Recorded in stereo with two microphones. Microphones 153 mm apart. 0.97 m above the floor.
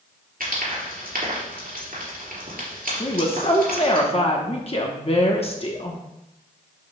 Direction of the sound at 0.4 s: 65° right (ahead or behind).